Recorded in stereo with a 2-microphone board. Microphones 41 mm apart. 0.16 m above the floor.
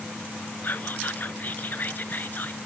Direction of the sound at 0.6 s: 50° left (ahead or behind).